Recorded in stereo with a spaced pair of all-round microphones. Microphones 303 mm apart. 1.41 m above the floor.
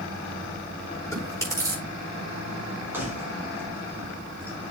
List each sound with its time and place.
1.1 s chewing: 10° left (ahead or behind), 9 m
2.9 s keys jangling: 5° right (ahead or behind), 5 m